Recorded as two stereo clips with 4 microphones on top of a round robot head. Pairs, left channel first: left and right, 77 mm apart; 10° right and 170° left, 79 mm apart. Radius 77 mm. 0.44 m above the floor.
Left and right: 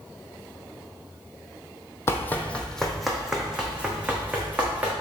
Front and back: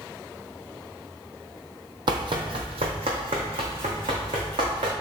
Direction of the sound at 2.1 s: 145° left.